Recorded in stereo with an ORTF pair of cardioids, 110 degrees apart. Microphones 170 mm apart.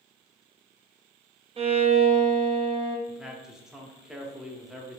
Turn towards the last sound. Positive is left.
turn(degrees=-5)